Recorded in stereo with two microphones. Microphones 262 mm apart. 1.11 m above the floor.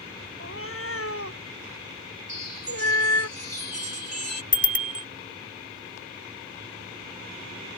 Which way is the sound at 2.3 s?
80° right.